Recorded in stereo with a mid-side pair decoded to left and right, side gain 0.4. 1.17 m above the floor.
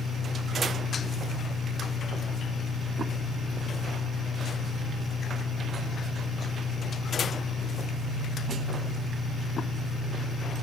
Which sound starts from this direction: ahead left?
An engine running, at 0.0 s.